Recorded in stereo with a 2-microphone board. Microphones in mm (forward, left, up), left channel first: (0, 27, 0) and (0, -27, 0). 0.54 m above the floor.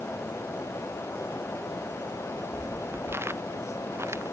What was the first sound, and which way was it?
Footsteps, 40° right (ahead or behind).